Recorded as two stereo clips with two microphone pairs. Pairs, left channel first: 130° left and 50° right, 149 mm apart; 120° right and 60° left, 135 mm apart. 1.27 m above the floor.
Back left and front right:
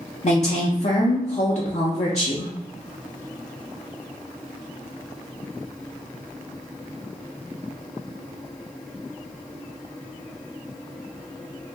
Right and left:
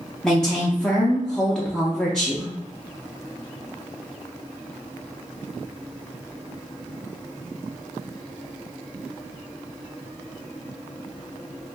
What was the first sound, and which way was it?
A woman speaking, 155° left.